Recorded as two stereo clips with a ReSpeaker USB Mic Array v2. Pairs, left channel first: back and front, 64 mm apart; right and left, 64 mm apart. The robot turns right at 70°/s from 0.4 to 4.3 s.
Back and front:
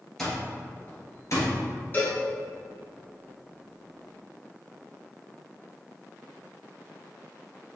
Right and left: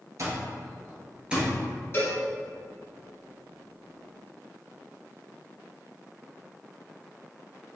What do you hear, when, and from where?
0.2 s an alarm clock: 95° left, 1.6 m; by 1.5 s 175° left, 1.6 m
1.9 s a cowbell: 130° right, 1.9 m; by 2.2 s 115° right, 1.9 m